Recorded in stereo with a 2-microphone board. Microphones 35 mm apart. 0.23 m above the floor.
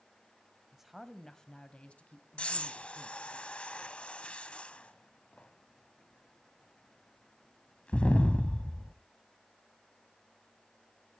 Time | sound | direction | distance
0.7 | a woman speaking | 10° right (ahead or behind) | 1.0 m
2.4 | breathing | 35° left (ahead or behind) | 0.8 m